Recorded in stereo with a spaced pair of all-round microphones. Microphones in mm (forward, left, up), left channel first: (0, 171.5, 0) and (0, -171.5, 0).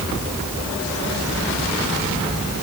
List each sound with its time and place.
Only background noise.